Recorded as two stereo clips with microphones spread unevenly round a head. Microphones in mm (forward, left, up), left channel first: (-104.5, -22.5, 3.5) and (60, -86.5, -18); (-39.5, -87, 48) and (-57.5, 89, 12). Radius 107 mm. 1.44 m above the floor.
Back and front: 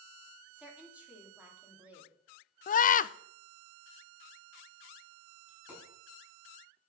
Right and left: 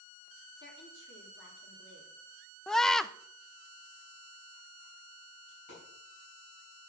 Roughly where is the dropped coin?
Right.